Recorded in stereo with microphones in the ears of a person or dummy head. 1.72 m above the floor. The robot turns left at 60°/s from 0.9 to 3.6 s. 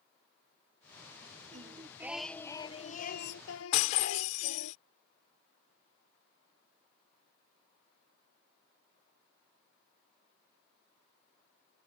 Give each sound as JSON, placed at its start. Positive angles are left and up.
{"t": 1.5, "sound": "singing", "azimuth_deg": -140}
{"t": 3.7, "sound": "breaking glass", "side_deg": 40}